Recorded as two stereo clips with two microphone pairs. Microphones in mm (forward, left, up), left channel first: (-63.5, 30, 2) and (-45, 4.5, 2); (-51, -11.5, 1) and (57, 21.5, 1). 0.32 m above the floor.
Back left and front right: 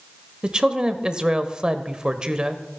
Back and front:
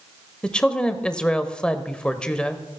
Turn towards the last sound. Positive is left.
turn(degrees=-90)